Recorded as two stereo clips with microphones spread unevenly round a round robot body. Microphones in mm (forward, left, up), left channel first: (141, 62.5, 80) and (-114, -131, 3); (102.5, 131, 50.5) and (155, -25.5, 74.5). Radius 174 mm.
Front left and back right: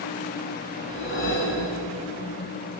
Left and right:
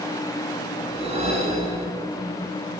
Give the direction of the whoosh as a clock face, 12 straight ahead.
1 o'clock.